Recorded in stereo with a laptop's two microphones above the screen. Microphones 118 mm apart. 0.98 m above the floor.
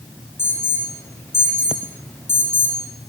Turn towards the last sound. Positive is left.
turn(degrees=20)  # may be behind; listen again after turning